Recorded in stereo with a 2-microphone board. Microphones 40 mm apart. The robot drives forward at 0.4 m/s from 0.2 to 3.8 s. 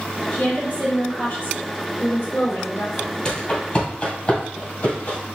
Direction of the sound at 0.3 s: 55° left (ahead or behind).